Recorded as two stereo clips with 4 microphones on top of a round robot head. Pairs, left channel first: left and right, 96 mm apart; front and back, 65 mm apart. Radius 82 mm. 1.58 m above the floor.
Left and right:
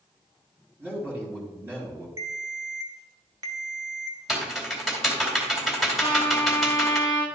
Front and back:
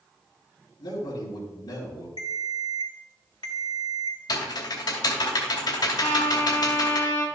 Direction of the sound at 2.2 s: 40° right.